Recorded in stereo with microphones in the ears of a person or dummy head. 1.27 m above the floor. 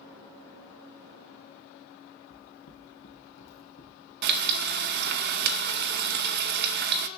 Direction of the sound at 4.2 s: 60° right (ahead or behind).